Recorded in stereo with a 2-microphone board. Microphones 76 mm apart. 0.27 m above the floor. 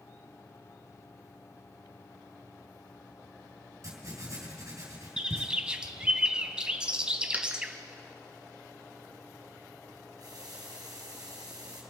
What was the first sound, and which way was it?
Writing, 45° right (ahead or behind).